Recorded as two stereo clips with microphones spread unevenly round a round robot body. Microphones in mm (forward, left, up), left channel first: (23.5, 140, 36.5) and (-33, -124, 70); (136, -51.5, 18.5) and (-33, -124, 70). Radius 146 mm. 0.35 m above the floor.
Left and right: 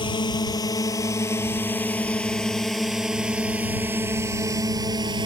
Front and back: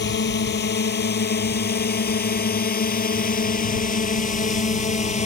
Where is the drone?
5° left; by 5.3 s 30° right.